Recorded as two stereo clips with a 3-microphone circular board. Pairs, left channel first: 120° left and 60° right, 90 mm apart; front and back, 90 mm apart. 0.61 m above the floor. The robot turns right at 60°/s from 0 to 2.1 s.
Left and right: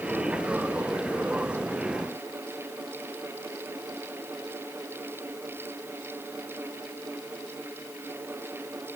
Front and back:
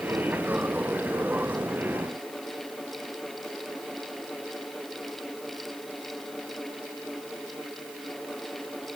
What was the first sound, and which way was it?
Only background noise.